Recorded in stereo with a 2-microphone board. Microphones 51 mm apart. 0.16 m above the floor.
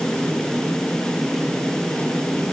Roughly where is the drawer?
I don't hear a drawer.